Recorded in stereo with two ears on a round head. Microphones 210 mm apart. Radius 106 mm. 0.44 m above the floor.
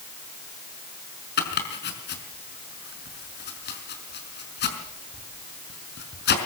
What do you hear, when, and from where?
1.4 s chopping: 50° left (ahead or behind), 5 m